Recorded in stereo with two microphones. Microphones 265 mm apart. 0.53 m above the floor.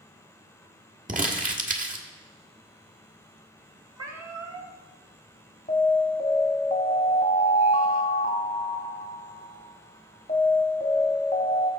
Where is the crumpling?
30° right (ahead or behind), 1.4 m.